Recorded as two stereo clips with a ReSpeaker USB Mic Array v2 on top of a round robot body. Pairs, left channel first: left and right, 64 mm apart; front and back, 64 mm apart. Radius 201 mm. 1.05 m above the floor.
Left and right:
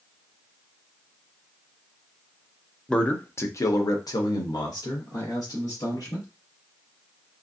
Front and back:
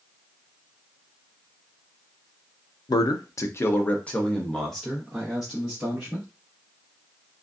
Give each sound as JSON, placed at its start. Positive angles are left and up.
{"t": 2.9, "sound": "a man speaking", "azimuth_deg": 10, "distance_m": 0.5}